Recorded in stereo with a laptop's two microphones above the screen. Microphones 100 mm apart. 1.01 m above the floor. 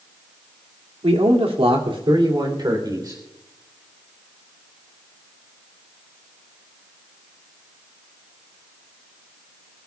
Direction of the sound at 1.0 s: 85° right.